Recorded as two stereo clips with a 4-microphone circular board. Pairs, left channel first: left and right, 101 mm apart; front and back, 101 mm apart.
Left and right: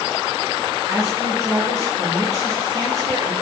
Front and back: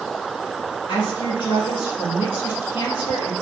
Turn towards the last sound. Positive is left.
turn(degrees=-35)